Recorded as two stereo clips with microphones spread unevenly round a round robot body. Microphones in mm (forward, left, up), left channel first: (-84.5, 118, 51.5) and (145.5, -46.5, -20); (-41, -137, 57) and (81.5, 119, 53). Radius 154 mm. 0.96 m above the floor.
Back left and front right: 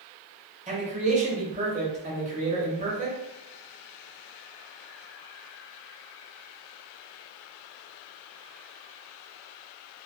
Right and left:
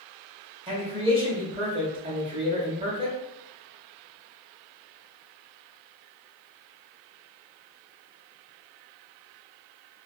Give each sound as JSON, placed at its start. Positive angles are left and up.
{"t": 0.7, "sound": "a man speaking", "azimuth_deg": 0, "distance_m": 1.0}